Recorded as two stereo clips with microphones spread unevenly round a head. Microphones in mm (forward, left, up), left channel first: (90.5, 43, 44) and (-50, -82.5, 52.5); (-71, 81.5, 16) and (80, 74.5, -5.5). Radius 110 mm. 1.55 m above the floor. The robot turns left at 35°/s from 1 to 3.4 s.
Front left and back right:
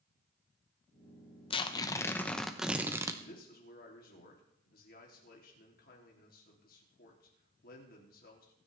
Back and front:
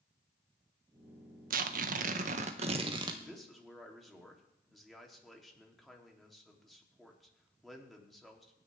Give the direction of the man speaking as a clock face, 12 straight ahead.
9 o'clock.